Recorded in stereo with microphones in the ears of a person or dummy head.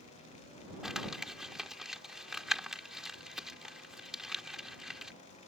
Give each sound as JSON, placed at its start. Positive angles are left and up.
{"t": 0.8, "sound": "crumpling", "side_deg": -5}